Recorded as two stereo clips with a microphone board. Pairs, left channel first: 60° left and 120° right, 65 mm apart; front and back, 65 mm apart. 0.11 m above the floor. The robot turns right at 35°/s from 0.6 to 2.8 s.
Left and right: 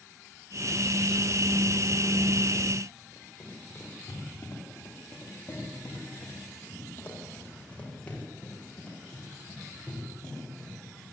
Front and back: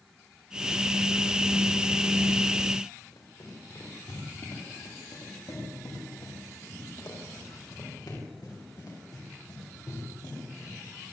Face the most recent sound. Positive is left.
turn(degrees=-25)